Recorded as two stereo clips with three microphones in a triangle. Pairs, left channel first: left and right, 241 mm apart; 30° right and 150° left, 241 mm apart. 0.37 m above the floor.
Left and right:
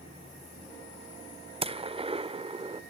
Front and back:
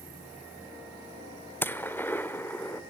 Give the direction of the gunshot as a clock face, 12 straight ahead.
3 o'clock.